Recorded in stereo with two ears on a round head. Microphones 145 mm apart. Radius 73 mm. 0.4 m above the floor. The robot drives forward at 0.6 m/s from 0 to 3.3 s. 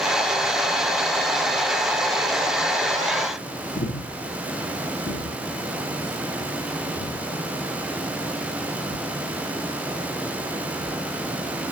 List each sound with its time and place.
3.8 s breathing: 70° left (ahead or behind), 3.5 m